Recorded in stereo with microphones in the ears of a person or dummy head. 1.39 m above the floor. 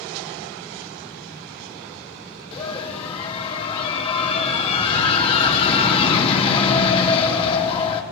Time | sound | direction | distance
2.5 | a scream | 30° left (ahead or behind) | 4 m